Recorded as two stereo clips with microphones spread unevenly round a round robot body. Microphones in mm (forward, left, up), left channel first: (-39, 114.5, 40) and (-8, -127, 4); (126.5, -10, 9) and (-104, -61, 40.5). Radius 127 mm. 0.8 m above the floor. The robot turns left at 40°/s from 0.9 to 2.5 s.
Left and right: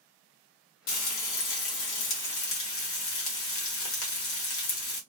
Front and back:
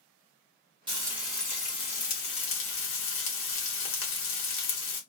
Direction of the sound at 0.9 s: 120° left.